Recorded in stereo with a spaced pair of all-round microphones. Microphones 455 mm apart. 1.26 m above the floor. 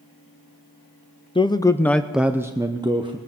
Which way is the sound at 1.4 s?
10° left (ahead or behind).